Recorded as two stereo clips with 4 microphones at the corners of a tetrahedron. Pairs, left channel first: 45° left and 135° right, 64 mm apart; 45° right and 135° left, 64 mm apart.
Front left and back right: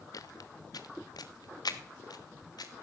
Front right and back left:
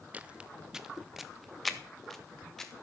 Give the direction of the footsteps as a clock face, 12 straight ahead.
10 o'clock.